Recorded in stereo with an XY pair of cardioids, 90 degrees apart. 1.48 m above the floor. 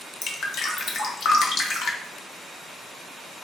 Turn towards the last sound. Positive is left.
turn(degrees=70)